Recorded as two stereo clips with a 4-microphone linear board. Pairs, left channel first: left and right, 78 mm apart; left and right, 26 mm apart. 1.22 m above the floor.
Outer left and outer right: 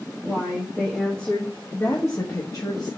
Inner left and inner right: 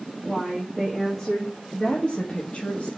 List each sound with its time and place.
0.2 s a woman speaking: centre (ahead or behind), 1.7 m; by 2.9 s 60° left (ahead or behind), 1.1 m